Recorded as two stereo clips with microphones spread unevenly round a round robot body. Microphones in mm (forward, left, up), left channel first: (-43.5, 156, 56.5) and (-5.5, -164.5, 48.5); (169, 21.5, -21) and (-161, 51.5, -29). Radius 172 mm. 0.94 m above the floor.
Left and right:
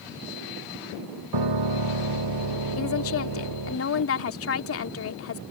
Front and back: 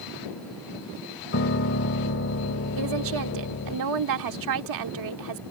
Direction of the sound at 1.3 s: 60° right.